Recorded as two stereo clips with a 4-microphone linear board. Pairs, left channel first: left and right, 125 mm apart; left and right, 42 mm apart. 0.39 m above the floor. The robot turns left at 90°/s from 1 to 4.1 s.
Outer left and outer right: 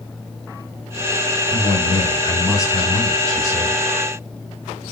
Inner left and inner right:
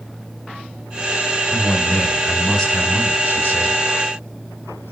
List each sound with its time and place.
1.5 s a man speaking: 100° left, 3 m; by 3.8 s 105° right, 3 m